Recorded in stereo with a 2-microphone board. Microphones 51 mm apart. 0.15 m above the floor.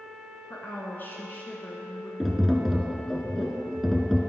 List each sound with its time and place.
0.5 s a woman speaking: 35° left (ahead or behind), 1.3 m
2.2 s tapping: 5° right (ahead or behind), 0.8 m